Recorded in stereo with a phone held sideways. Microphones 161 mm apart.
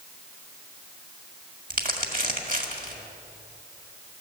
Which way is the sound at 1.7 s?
55° right (ahead or behind).